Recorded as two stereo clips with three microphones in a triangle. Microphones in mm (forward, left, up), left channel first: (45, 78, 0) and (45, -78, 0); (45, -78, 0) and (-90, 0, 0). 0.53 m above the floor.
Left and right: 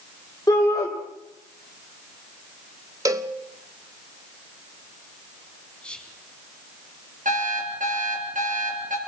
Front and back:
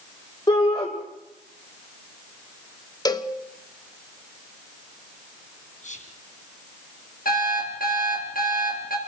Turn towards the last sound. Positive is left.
turn(degrees=-55)